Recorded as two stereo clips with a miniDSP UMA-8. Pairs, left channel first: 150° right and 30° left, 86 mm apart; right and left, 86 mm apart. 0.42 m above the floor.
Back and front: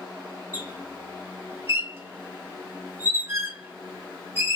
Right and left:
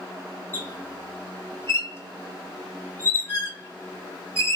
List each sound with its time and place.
0.5 s a squeak: 30° right, 1.0 m